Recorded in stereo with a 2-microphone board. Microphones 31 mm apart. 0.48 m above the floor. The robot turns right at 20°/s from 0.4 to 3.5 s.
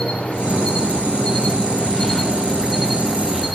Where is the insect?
130° left, 0.7 m; by 3.5 s 170° right, 0.7 m.